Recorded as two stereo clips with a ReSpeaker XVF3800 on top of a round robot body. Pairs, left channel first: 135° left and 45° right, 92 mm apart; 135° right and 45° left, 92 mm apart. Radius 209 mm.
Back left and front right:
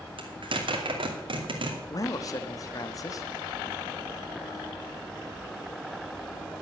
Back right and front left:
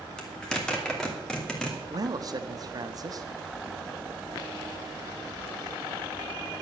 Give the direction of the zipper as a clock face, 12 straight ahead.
2 o'clock.